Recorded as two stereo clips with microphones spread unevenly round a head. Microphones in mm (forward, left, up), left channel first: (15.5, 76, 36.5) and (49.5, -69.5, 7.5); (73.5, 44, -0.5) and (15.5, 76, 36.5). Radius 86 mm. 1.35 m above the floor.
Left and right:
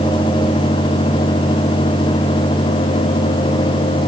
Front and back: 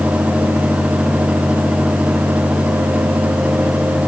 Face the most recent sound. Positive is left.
No sound to turn to.